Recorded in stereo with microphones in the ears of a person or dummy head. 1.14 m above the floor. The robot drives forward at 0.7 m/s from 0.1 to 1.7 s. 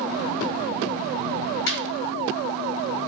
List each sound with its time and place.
1.7 s laughter: 55° left (ahead or behind), 2.5 m